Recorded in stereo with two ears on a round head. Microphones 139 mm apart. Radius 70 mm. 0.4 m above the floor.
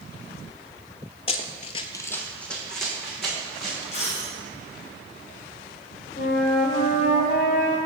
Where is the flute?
50° left (ahead or behind), 1.1 m.